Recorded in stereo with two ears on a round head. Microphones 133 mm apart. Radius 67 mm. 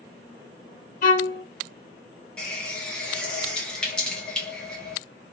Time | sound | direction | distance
1.0 | a violin | 60° left (ahead or behind) | 1.1 m
2.4 | a running tap | 5° left (ahead or behind) | 1.3 m